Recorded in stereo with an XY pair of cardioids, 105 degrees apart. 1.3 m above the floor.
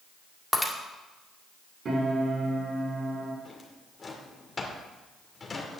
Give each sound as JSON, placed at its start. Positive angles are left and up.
{"t": 0.5, "sound": "breaking glass", "azimuth_deg": 5, "distance_m": 1.7}
{"t": 1.9, "sound": "a piano", "azimuth_deg": -45, "distance_m": 5.0}
{"t": 3.5, "sound": "a drawer", "azimuth_deg": 30, "distance_m": 2.0}